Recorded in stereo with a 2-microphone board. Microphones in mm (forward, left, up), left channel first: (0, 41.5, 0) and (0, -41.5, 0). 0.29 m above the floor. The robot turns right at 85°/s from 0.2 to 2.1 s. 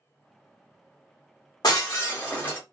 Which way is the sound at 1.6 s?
115° left.